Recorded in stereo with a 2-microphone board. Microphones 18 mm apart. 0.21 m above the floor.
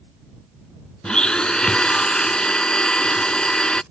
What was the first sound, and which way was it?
A blender, 60° left (ahead or behind).